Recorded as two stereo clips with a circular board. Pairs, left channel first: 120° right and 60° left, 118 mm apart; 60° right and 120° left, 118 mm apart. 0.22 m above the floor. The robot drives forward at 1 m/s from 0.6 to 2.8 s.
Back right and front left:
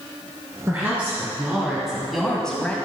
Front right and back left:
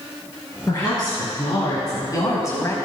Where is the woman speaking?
10° right, 3 m; by 2.8 s 60° right, 1.4 m.